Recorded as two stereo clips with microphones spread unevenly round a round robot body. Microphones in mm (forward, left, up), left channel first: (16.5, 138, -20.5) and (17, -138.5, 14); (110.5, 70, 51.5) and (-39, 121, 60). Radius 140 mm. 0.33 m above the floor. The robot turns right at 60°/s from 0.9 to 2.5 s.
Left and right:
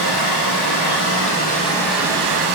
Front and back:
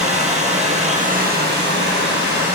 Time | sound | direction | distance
0.0 | running water | 120° left | 5 m